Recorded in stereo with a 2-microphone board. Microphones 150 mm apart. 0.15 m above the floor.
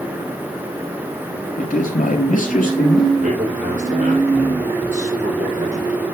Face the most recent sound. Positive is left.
turn(degrees=-60)  # may be behind; listen again after turning